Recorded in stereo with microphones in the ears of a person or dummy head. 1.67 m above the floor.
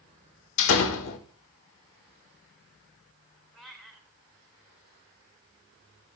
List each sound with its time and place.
0.6 s a door slam: 70° left (ahead or behind), 1.7 m
3.5 s a cat meowing: centre (ahead or behind), 3 m